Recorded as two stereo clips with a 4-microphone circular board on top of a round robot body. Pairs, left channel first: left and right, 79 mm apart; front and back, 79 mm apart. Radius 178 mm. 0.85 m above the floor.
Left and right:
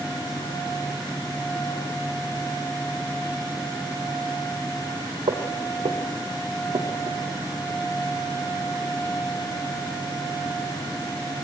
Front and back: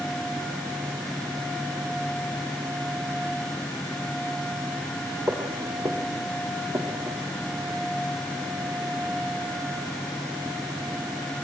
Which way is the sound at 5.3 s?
115° right.